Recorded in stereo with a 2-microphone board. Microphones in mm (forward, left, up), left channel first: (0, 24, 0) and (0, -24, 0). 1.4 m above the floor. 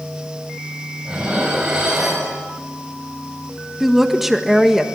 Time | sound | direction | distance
1.1 | dishes clattering | 15° right (ahead or behind) | 6 m
3.8 | a woman speaking | 5° right (ahead or behind) | 1.5 m